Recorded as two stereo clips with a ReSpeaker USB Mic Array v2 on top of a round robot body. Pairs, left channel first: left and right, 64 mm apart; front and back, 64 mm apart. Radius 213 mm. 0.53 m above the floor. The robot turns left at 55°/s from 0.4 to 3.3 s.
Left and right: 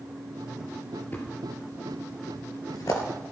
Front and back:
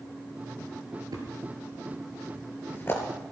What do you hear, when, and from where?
1.1 s a thud: 155° left, 4 m; by 3.0 s 50° left, 4 m